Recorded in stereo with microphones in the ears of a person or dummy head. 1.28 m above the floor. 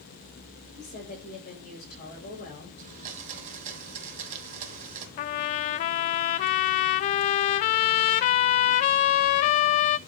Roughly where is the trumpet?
Left.